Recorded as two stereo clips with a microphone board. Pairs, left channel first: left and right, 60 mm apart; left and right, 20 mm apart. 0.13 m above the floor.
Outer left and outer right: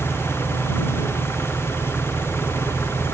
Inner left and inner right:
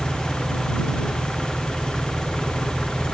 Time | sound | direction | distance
0.0 | an engine running | 45° left (ahead or behind) | ?